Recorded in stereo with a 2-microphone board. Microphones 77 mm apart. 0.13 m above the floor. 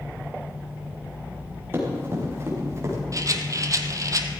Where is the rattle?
50° right (ahead or behind), 1.0 m.